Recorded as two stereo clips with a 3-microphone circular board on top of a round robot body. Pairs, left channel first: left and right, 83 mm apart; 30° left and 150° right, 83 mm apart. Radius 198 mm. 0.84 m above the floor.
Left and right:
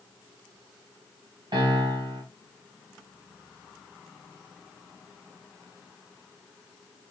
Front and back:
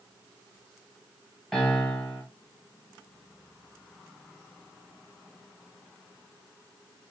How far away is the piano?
About 1.6 m.